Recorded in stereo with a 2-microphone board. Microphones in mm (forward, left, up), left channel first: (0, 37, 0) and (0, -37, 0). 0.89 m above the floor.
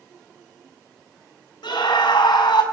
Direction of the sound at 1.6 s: 80° left.